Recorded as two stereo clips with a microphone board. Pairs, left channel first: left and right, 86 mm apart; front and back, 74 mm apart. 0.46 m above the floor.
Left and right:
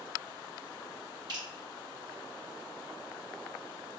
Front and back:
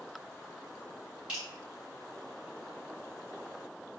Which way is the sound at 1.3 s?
105° right.